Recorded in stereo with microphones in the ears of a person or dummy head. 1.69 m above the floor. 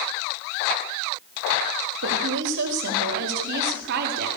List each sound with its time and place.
2.0 s a woman speaking: 70° right (ahead or behind), 3.5 m; by 4.3 s 55° right (ahead or behind), 4 m